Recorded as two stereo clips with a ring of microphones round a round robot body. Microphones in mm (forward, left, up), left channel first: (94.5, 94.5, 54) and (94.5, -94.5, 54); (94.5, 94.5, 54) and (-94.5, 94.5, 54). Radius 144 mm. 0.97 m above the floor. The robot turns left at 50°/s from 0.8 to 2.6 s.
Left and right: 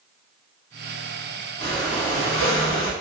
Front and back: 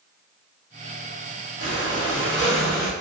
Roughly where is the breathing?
Behind.